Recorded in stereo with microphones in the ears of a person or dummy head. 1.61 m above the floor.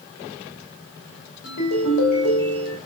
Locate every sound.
1.4 s a ringtone: 65° left (ahead or behind), 2.5 m